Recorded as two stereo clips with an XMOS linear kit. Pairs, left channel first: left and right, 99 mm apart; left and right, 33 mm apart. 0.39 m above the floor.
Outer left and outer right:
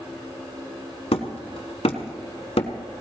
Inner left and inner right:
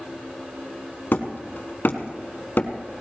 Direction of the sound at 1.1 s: 75° left (ahead or behind).